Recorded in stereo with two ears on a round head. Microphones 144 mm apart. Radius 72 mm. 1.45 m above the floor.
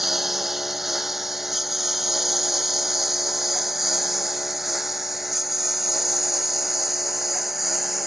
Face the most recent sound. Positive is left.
turn(degrees=0)  # may be behind; listen again after turning